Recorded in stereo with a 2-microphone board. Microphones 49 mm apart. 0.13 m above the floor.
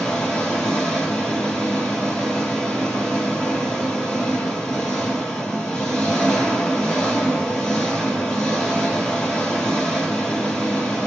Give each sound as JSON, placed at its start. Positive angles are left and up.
{"t": 0.0, "sound": "an engine running", "side_deg": 10, "distance_m": 1.8}